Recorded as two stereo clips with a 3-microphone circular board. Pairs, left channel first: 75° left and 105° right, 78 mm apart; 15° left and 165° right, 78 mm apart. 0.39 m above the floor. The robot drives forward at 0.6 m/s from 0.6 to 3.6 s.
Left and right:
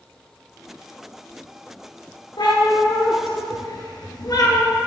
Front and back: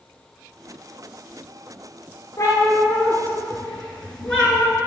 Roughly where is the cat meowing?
Ahead left.